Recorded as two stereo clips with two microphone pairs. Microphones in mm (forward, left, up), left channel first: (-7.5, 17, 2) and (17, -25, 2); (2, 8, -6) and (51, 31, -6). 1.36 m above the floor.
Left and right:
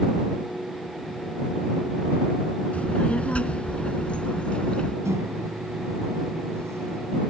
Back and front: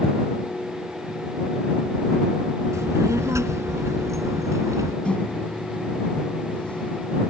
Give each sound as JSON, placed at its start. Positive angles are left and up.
{"t": 2.7, "sound": "a child speaking", "azimuth_deg": 55}
{"t": 5.0, "sound": "a microwave", "azimuth_deg": -85}